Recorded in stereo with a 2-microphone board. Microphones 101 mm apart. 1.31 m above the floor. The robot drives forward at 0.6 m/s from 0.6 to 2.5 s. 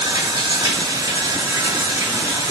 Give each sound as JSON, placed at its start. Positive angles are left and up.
{"t": 0.0, "sound": "running water", "side_deg": -40, "distance_m": 3.0}